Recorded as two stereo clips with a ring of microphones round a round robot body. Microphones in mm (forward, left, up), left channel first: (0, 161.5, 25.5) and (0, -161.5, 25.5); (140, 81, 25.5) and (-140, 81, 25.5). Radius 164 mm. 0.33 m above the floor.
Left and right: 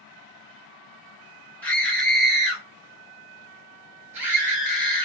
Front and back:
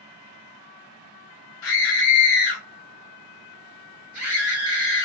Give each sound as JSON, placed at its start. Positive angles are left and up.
{"t": 1.6, "sound": "a scream", "azimuth_deg": 5, "distance_m": 1.8}